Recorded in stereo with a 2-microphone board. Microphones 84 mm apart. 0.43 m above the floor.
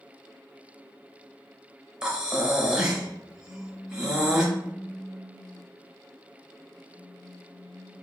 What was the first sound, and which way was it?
Breathing, 10° right (ahead or behind).